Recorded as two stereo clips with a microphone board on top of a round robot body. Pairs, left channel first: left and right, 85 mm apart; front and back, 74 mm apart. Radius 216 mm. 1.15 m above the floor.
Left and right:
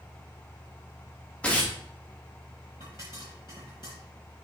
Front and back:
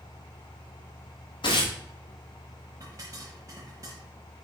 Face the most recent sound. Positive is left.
turn(degrees=125)